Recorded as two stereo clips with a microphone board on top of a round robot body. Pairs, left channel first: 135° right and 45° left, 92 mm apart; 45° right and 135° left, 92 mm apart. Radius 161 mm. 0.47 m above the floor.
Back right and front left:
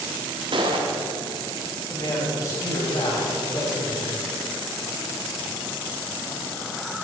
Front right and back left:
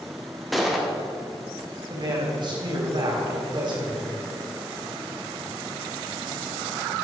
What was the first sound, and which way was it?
A gunshot, 45° left.